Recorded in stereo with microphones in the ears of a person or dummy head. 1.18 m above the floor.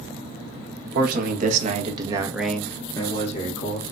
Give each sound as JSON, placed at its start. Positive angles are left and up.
{"t": 0.9, "sound": "a man speaking", "side_deg": -60, "distance_m": 1.4}